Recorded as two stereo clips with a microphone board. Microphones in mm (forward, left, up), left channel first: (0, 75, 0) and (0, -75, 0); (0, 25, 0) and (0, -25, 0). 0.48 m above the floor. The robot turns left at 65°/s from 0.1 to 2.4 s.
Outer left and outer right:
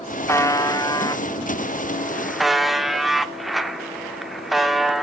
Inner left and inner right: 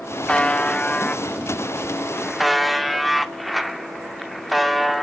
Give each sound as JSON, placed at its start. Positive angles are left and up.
{"t": 0.3, "sound": "a buzzer", "side_deg": 15, "distance_m": 0.6}